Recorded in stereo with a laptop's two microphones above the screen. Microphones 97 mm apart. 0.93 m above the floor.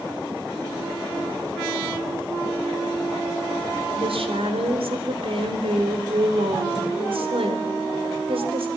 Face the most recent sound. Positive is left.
turn(degrees=-80)